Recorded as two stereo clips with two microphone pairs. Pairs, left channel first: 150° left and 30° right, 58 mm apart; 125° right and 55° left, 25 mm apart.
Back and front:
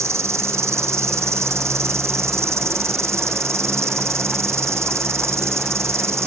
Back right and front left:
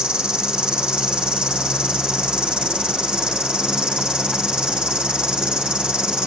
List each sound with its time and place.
0.0 s an insect: 5° left, 1.4 m